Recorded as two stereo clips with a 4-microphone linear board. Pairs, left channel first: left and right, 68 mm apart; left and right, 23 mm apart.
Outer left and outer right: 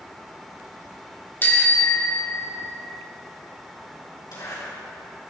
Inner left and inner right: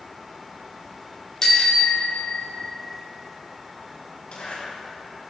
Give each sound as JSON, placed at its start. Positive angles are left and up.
{"t": 1.4, "sound": "a bicycle bell", "side_deg": 30, "distance_m": 2.5}
{"t": 4.3, "sound": "a zipper", "side_deg": 85, "distance_m": 7.0}